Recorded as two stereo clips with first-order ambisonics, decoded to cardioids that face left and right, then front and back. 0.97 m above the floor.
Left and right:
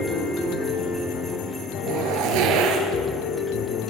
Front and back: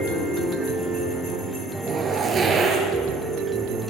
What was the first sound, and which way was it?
A zipper, 110° right.